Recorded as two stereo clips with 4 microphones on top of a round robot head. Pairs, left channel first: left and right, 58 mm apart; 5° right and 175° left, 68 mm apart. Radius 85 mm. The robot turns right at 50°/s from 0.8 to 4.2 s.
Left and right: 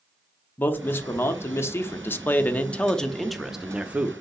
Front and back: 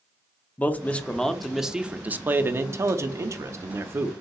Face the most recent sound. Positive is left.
turn(degrees=-135)